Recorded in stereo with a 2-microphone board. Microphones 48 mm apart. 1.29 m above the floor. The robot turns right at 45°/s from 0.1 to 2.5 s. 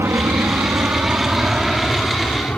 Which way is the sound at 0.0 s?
60° right (ahead or behind).